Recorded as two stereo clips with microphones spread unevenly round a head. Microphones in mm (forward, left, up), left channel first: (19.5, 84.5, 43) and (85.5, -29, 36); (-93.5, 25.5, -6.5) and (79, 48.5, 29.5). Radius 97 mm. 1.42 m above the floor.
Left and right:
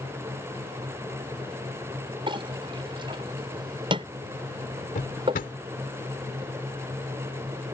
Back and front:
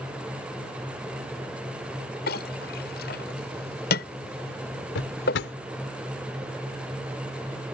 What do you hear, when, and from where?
2.3 s a clink: 125° right
5.0 s a drawer: 170° left